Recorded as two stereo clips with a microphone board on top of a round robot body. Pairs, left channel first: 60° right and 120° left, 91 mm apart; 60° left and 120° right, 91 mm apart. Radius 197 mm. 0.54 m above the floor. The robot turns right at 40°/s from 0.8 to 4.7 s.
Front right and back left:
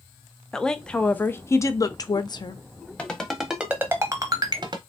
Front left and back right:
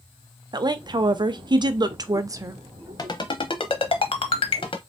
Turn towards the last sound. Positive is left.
turn(degrees=85)